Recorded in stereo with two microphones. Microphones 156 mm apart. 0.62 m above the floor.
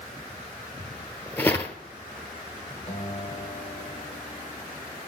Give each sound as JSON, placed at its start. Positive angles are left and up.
{"t": 0.8, "sound": "footsteps", "side_deg": 15, "distance_m": 0.8}
{"t": 2.9, "sound": "a guitar", "side_deg": 40, "distance_m": 2.0}